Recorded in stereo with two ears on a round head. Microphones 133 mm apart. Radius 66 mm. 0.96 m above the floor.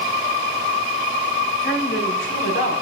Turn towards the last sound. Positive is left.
turn(degrees=85)